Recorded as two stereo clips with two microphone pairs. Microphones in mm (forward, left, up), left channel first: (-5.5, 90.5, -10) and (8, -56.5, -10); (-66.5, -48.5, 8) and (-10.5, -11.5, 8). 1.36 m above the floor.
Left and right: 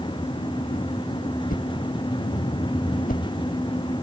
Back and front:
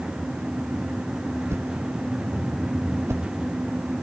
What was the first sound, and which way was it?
A whoosh, 80° left.